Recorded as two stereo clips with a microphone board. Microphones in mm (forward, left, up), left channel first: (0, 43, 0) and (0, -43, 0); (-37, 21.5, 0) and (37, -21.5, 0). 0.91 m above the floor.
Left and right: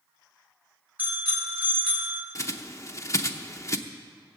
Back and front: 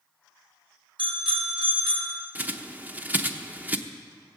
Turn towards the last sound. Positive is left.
turn(degrees=40)